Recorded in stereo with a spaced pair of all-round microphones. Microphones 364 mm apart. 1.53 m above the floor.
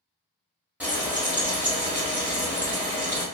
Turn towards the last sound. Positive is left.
turn(degrees=-5)  # may be behind; listen again after turning